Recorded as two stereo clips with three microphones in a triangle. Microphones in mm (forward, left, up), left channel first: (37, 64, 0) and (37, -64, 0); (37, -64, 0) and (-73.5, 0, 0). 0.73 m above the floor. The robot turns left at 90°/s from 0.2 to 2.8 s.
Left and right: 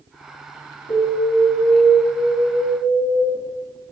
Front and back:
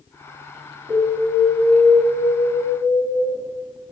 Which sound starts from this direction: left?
An alarm, at 0.9 s.